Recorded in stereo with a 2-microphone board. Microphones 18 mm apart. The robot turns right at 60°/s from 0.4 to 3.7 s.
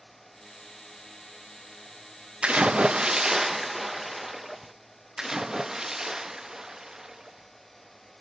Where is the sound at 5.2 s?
25° right (ahead or behind), 0.5 m.